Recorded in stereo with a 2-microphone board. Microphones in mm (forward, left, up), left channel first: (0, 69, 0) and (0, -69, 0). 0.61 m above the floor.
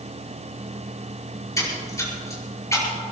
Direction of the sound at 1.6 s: 25° left (ahead or behind).